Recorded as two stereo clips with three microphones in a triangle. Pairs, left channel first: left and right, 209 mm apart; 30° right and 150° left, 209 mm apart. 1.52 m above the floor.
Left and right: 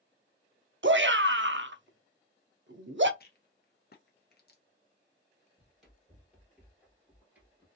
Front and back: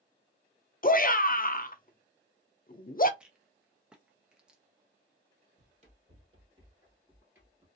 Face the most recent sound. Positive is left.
turn(degrees=-135)